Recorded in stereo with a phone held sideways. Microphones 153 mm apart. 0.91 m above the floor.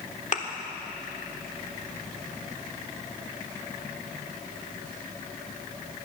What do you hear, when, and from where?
0.3 s a thud: 55° left (ahead or behind), 1.3 m